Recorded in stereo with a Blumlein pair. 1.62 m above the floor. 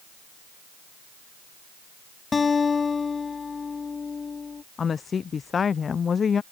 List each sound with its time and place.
2.3 s a guitar: 15° left
4.8 s a woman speaking: 20° left